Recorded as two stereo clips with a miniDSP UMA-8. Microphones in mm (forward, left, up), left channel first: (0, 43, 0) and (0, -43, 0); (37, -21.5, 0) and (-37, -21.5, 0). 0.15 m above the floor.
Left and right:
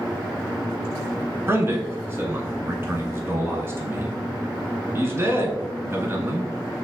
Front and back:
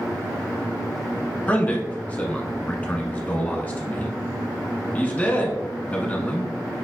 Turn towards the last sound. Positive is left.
turn(degrees=-55)